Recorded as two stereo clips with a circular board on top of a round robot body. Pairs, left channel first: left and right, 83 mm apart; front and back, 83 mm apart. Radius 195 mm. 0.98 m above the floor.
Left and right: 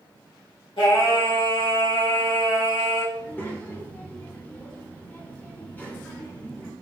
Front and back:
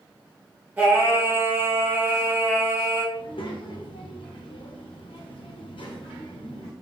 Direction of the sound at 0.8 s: 110° left.